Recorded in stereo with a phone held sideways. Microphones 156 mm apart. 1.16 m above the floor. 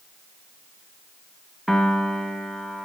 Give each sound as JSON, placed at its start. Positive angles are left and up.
{"t": 1.7, "sound": "a piano", "side_deg": 0, "distance_m": 1.3}